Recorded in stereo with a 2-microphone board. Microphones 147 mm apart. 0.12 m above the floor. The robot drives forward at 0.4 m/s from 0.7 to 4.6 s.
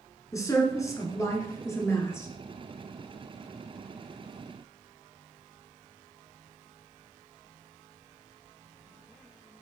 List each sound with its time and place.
0.3 s a woman speaking: 25° left (ahead or behind), 1.2 m; by 2.3 s 20° left (ahead or behind), 1.4 m